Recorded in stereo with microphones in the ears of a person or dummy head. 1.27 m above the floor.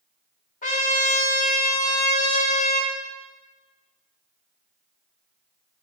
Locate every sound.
0.6 s a trumpet: 45° left (ahead or behind), 1.3 m